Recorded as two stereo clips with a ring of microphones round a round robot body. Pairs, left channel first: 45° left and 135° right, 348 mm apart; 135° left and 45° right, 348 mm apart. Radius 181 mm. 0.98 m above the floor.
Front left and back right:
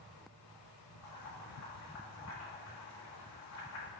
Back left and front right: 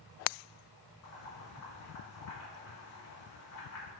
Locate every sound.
1.0 s boiling: 95° left, 4 m